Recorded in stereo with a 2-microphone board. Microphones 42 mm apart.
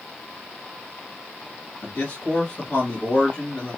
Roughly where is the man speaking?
Left.